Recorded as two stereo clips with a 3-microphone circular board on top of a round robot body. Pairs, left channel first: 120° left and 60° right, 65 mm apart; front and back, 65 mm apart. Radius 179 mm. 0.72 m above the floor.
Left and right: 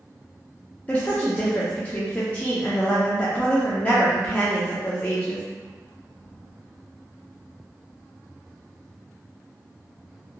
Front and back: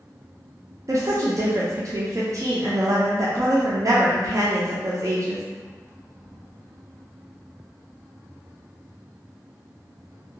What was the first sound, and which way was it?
A woman speaking, straight behind.